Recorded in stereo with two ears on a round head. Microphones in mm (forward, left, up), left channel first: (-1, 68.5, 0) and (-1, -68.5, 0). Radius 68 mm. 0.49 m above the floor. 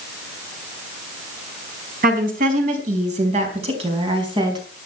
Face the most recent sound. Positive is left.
turn(degrees=-30)  # may be behind; listen again after turning